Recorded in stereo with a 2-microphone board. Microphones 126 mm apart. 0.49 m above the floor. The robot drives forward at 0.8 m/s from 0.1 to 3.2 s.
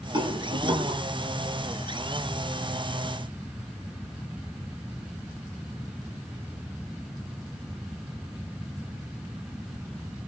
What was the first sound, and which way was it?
A rattle, 40° right (ahead or behind).